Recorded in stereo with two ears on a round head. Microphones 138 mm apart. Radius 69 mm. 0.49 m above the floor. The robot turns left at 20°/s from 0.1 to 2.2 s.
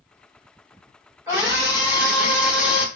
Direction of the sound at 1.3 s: 15° right (ahead or behind).